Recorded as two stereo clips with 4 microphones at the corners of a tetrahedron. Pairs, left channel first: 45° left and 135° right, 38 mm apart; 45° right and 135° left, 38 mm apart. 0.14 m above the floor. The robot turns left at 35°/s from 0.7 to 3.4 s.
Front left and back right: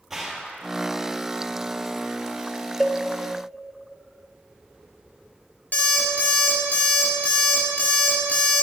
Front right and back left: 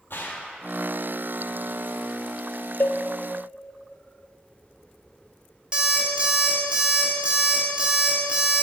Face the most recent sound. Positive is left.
turn(degrees=75)